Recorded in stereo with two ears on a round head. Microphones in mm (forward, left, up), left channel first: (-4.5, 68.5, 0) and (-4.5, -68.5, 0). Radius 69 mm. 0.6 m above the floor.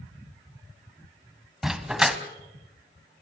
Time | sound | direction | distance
1.6 | a dog barking | 5° right (ahead or behind) | 1.4 m